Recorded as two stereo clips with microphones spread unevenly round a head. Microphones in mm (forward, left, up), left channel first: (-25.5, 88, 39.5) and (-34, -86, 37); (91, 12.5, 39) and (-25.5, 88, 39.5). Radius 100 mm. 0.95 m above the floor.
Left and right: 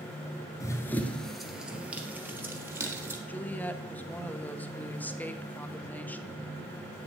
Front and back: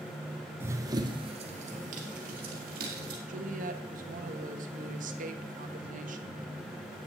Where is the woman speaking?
170° left, 1.3 m.